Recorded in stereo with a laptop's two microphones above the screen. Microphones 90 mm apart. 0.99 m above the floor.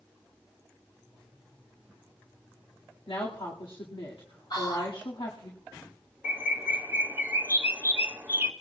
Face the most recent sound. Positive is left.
turn(degrees=-25)  # may be behind; listen again after turning